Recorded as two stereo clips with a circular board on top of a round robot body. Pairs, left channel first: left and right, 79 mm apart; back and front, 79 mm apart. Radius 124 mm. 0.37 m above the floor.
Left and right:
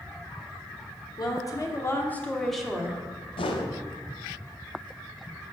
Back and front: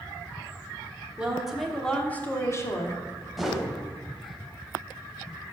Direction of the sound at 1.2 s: 75° left.